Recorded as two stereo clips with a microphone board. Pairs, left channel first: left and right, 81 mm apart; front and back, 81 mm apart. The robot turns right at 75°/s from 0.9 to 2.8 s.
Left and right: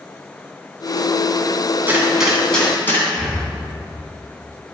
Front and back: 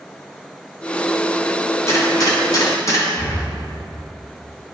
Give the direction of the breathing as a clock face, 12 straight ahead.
12 o'clock.